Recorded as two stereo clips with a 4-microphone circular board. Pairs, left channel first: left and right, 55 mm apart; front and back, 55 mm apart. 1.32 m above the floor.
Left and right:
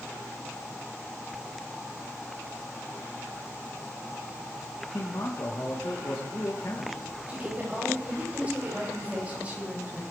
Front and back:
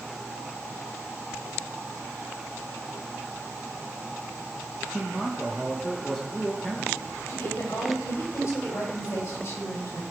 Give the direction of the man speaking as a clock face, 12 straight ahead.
9 o'clock.